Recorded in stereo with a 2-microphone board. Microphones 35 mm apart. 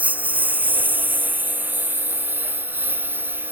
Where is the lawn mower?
45° right (ahead or behind); by 3.5 s 65° right (ahead or behind).